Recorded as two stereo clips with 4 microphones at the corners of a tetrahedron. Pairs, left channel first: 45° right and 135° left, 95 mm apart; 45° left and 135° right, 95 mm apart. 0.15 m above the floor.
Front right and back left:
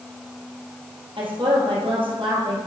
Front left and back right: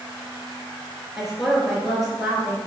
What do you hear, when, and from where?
1.2 s a woman speaking: 140° left, 3 m